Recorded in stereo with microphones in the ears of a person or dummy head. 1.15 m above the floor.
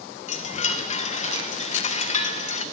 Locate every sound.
0.3 s a chime: 40° left (ahead or behind), 0.5 m